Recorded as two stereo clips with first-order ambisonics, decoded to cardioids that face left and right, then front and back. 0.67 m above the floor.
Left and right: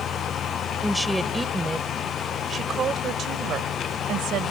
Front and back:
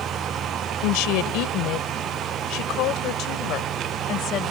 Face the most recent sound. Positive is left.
turn(degrees=-50)